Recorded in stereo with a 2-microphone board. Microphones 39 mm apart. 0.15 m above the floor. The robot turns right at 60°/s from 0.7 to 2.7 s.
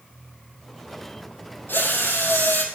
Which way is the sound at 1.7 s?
65° left.